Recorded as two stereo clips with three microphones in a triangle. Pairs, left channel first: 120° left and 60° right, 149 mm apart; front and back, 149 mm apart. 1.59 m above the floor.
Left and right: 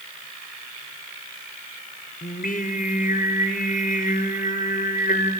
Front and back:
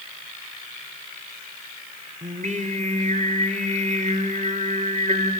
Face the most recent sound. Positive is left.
turn(degrees=145)